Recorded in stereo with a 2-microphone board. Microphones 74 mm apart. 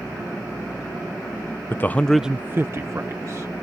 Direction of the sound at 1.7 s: 30° left (ahead or behind).